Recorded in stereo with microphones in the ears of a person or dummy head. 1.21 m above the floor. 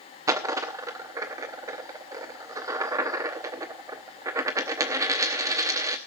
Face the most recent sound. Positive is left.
turn(degrees=-15)  # may be behind; listen again after turning